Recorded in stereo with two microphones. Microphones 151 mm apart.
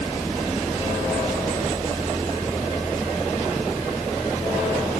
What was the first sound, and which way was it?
Only background noise.